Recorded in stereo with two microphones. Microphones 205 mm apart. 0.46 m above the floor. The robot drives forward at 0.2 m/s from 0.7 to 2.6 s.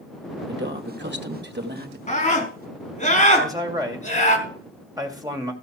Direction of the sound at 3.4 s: 15° right (ahead or behind).